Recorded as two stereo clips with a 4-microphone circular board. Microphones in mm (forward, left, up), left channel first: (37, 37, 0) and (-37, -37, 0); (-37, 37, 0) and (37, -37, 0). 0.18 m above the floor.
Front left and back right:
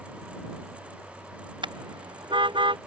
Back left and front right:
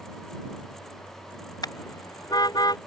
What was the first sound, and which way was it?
A car horn, 175° right.